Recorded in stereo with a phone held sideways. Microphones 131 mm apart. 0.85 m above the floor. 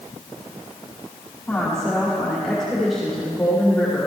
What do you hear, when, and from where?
1.5 s a woman speaking: 5° left (ahead or behind), 2.5 m